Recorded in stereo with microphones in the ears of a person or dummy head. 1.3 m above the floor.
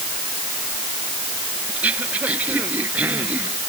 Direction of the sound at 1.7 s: 5° right (ahead or behind).